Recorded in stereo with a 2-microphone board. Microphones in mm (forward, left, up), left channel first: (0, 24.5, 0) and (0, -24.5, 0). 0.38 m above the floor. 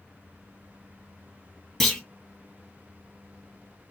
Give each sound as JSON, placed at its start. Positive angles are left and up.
{"t": 1.8, "sound": "a clunk", "side_deg": 5, "distance_m": 2.0}